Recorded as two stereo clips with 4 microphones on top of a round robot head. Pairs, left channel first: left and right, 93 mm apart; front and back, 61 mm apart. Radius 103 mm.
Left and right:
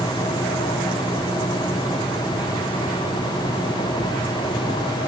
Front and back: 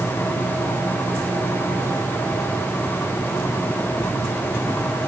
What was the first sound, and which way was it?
Only background noise.